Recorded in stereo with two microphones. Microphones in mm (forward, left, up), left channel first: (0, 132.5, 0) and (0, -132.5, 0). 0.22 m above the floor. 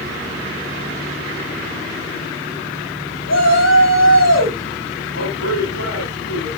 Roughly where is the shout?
Left.